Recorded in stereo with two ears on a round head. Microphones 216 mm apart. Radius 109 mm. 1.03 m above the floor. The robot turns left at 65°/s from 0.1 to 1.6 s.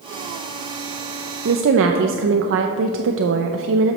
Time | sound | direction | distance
1.4 | a woman speaking | 45° right (ahead or behind) | 0.5 m